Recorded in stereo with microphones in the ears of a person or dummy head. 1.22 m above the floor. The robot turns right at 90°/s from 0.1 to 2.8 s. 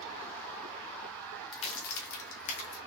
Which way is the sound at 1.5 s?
25° left (ahead or behind).